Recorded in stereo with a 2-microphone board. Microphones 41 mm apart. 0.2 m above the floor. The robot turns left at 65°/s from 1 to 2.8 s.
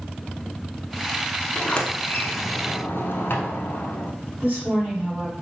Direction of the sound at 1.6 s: 20° left (ahead or behind).